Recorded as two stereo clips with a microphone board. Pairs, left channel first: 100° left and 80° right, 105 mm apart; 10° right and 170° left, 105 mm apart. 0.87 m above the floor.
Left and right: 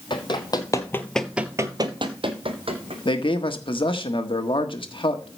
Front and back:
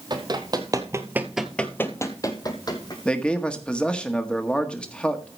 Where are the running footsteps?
135° left, 1.7 m; by 3.0 s 60° right, 2 m.